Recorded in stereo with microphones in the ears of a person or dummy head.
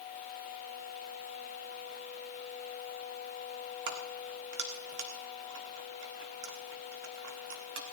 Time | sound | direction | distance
3.9 | keys jangling | 60° right (ahead or behind) | 1.6 m